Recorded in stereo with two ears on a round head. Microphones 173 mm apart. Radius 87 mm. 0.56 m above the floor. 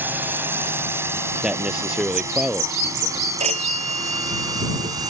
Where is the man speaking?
5° right (ahead or behind).